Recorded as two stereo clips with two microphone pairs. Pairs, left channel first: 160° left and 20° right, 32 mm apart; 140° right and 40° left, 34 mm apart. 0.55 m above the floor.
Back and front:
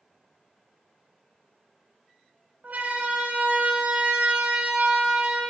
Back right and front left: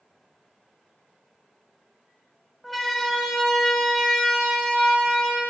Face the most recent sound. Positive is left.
turn(degrees=-65)